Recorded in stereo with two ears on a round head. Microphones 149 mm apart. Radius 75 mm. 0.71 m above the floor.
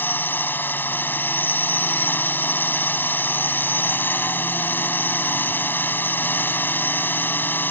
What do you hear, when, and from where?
0.0 s a drone: 10° left (ahead or behind)